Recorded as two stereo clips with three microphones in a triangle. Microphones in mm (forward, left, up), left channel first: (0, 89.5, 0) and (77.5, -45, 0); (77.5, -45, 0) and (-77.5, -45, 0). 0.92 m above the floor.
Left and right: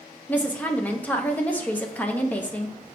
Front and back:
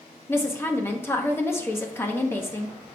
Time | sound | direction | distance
0.3 | a woman speaking | 55° left | 0.8 m